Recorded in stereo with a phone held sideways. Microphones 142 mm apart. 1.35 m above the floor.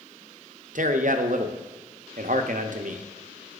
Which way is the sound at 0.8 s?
65° right (ahead or behind).